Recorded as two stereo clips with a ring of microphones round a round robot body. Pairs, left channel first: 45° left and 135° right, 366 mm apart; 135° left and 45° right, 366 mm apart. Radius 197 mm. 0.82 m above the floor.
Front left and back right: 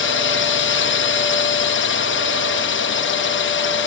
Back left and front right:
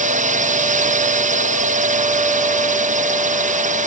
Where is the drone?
10° left.